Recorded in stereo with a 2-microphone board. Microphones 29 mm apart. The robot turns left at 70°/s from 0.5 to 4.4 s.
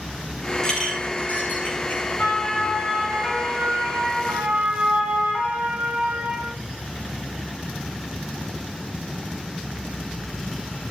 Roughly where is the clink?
Centre.